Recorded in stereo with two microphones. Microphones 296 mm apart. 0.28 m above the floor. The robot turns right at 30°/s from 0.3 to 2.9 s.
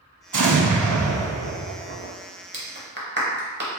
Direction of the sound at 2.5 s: 40° right (ahead or behind).